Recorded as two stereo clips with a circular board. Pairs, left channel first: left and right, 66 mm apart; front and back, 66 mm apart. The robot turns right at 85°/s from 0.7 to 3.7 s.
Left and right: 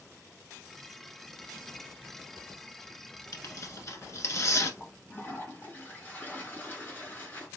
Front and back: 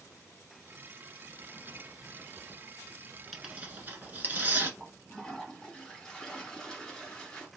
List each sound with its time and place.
3.3 s tearing paper: 90° left, 1.0 m; by 4.7 s 125° left, 1.0 m
4.8 s a toilet flushing: 70° left, 1.8 m